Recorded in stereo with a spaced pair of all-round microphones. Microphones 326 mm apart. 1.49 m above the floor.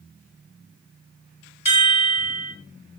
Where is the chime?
75° left (ahead or behind), 1.3 m.